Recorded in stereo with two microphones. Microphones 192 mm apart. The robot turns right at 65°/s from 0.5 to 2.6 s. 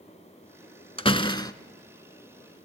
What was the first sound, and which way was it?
A door slam, 105° left.